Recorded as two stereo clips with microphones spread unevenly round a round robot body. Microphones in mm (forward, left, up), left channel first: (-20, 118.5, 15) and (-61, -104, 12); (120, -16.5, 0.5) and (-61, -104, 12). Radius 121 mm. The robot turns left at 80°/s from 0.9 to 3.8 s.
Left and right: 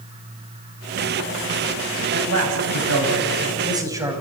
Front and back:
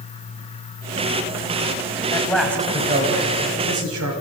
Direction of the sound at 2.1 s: 40° right.